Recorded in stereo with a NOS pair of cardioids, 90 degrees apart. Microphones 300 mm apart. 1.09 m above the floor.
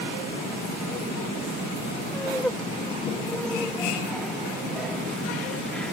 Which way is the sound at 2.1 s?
5° left.